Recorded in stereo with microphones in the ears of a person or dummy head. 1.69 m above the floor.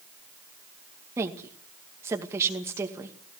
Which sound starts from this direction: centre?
A woman speaking, at 1.2 s.